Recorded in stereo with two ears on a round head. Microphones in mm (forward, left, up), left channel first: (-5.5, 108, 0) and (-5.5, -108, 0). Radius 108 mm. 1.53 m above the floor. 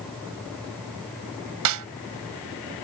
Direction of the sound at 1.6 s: 75° right (ahead or behind).